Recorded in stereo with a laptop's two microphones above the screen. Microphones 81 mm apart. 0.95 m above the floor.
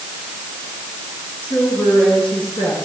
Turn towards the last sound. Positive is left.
turn(degrees=90)